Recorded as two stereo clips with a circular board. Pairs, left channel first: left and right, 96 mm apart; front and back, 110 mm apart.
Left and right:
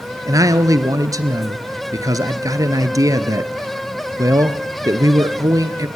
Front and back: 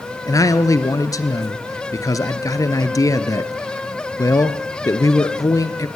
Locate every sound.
0.3 s a man speaking: 50° right, 2 m